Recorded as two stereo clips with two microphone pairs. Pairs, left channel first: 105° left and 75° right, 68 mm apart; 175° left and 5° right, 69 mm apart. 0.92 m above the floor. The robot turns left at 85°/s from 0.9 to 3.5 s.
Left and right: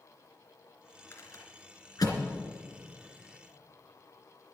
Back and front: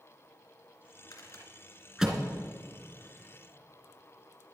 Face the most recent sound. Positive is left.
turn(degrees=-40)